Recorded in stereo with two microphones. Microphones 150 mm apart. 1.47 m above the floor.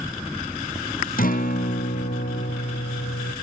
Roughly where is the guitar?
Left.